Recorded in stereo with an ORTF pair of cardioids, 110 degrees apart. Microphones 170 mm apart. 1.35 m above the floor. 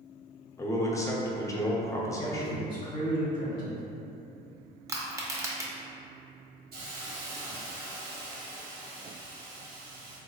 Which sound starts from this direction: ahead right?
A hiss, at 6.7 s.